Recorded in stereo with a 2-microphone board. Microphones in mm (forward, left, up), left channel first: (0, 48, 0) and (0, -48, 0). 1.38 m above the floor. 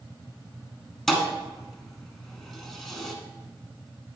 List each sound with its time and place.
1.1 s a thud: centre (ahead or behind), 1.4 m